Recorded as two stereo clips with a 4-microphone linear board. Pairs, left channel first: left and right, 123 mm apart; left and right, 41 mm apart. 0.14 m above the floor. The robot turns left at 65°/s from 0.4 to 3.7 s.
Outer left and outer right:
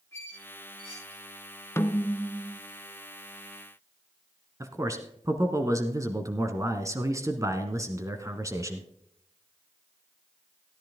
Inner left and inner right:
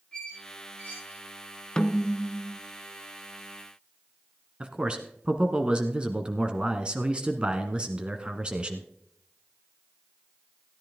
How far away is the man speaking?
About 1.2 m.